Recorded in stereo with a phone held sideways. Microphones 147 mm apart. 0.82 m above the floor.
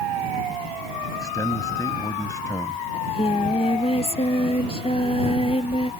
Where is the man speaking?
25° left (ahead or behind).